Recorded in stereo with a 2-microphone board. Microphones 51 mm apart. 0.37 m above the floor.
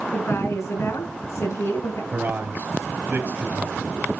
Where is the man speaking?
40° right (ahead or behind), 2.5 m.